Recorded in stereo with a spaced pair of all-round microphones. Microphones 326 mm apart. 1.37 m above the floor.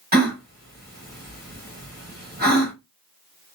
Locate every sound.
0.1 s a gasp: 30° right (ahead or behind), 1.5 m